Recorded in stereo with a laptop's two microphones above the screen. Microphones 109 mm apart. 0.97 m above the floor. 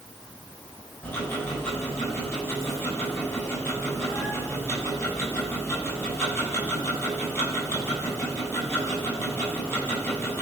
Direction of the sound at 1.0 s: 20° left (ahead or behind).